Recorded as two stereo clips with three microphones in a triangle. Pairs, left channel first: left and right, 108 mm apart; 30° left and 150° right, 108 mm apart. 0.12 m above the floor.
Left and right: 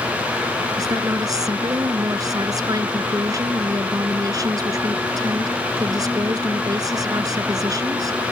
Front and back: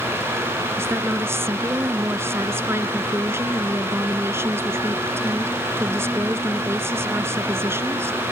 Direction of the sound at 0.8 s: 100° right.